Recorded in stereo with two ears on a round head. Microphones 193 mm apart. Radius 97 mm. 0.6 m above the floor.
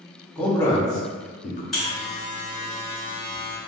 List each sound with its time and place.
0.3 s a man speaking: 5° left (ahead or behind), 1.1 m; by 1.6 s 40° left (ahead or behind), 0.7 m
1.7 s a buzzer: centre (ahead or behind), 1.6 m